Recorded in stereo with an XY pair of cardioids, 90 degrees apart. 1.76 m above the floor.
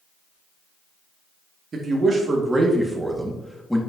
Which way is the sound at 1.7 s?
50° right.